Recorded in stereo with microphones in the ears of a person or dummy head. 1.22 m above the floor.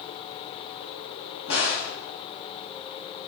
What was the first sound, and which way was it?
A crack, 65° left (ahead or behind).